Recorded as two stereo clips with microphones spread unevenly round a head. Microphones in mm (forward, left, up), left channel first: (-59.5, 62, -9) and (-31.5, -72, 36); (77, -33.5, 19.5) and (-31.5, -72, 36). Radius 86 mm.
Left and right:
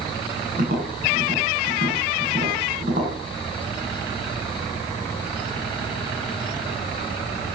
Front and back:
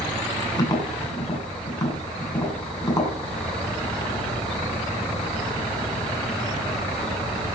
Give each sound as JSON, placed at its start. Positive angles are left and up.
{"t": 0.6, "sound": "tapping", "azimuth_deg": -40, "distance_m": 8.0}